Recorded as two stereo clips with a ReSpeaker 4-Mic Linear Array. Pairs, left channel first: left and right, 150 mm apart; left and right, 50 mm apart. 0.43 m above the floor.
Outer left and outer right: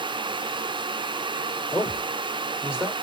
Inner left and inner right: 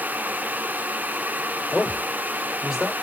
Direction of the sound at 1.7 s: 10° right (ahead or behind).